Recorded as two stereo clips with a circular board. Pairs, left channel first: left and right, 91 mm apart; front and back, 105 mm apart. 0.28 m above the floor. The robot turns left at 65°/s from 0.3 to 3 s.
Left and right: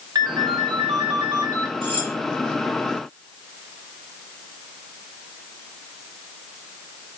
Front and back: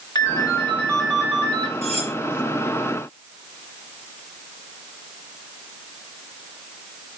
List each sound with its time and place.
0.1 s a ringtone: 45° right, 2 m; by 1.7 s 135° right, 2 m
1.8 s cutlery clinking: 80° right, 2.0 m; by 2.1 s 100° right, 2.0 m